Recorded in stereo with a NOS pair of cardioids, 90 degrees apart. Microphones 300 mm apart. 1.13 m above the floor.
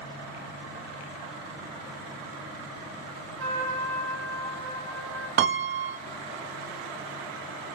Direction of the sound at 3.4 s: 50° right.